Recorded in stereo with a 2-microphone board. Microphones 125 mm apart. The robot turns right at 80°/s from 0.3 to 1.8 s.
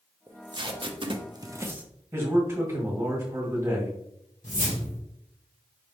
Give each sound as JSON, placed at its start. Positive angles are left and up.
{"t": 0.3, "sound": "tape being pulled", "side_deg": -25, "distance_m": 0.5}
{"t": 2.1, "sound": "a man speaking", "side_deg": -20, "distance_m": 1.7}
{"t": 4.4, "sound": "a whoosh", "side_deg": 80, "distance_m": 1.7}